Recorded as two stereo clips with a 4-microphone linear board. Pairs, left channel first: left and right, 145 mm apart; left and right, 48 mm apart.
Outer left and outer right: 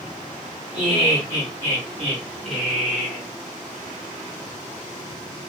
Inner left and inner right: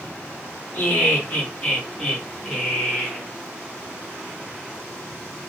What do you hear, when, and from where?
0.7 s laughter: 30° left (ahead or behind), 1.3 m; by 3.2 s 5° right (ahead or behind), 1.8 m